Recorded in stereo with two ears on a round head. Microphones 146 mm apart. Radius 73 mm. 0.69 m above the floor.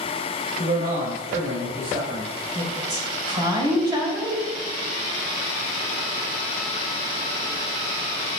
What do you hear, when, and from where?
0.6 s a man speaking: 55° right (ahead or behind), 3 m
2.5 s a woman speaking: 30° right (ahead or behind), 3 m